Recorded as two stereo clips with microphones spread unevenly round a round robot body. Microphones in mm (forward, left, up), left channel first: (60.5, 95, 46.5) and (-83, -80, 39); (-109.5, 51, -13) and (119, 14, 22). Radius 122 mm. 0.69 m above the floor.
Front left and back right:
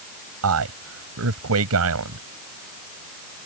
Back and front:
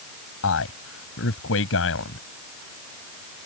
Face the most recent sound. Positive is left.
turn(degrees=-150)